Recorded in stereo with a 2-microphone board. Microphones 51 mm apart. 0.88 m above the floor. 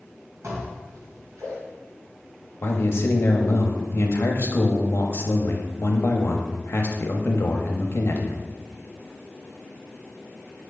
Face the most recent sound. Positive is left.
turn(degrees=50)  # may be behind; listen again after turning